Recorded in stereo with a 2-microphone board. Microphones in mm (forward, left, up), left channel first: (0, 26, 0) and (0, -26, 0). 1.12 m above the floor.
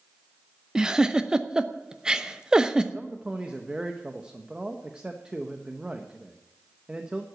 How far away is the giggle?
About 0.7 m.